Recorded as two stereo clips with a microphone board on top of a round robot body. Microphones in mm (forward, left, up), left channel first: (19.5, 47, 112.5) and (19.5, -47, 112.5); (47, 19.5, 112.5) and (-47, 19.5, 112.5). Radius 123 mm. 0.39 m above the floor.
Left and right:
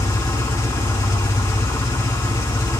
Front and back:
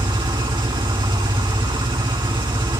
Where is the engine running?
145° left, 3 m.